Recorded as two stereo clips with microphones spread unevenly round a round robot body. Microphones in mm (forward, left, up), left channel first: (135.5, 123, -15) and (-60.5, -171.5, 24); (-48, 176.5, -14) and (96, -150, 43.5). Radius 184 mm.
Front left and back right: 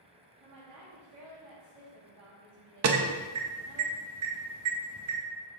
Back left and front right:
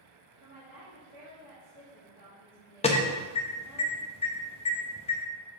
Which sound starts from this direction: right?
A woman speaking, at 0.4 s.